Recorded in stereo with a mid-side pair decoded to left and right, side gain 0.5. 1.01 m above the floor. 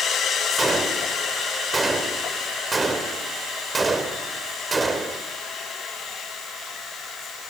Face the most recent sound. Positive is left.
turn(degrees=-20)